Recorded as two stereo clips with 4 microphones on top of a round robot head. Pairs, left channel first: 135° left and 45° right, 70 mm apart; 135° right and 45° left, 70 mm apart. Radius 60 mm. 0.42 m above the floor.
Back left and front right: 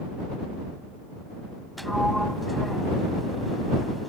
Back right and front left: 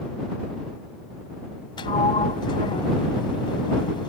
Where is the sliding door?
135° right.